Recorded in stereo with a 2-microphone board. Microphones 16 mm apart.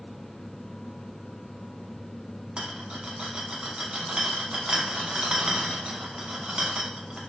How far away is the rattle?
About 0.7 m.